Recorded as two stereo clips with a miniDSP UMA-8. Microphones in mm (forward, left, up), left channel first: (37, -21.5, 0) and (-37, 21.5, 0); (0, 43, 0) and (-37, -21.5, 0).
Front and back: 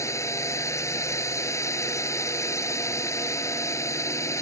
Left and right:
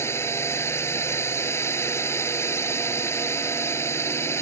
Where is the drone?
15° left.